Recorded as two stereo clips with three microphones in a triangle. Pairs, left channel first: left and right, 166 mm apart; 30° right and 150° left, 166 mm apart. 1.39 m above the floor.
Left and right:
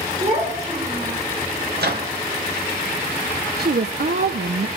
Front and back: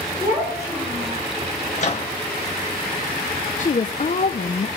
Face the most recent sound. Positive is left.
turn(degrees=-70)